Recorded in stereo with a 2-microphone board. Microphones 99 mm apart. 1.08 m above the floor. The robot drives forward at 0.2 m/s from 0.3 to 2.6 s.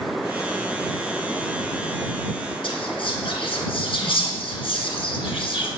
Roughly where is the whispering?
Left.